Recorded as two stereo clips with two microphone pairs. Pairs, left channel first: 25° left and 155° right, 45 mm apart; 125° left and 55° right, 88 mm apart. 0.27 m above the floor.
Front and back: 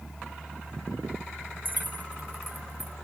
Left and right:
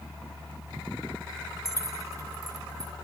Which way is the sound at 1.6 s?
110° right.